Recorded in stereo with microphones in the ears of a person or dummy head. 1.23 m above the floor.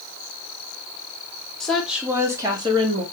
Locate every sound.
1.6 s a woman speaking: 5° left (ahead or behind), 1.4 m; by 3.0 s 25° right (ahead or behind), 1.5 m